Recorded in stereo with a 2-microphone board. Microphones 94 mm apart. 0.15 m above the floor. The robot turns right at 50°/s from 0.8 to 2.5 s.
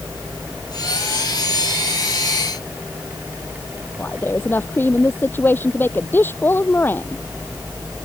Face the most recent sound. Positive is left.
turn(degrees=25)  # may be behind; listen again after turning